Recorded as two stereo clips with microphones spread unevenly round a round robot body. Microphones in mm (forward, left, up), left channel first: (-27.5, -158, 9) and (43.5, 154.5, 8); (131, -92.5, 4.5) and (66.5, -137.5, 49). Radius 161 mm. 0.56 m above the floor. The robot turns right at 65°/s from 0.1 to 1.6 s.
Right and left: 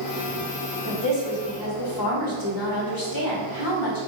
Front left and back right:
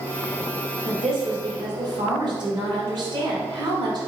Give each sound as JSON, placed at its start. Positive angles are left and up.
{"t": 0.8, "sound": "a woman speaking", "azimuth_deg": -155, "distance_m": 1.8}